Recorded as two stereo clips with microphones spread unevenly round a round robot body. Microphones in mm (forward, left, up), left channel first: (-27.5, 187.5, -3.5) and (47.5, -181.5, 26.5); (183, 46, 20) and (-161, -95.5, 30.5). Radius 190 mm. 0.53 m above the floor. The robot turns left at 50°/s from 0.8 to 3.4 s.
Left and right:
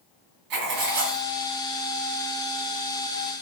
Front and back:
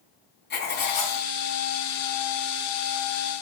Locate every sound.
0.5 s writing: 40° right, 2.5 m; by 1.2 s 65° right, 2.5 m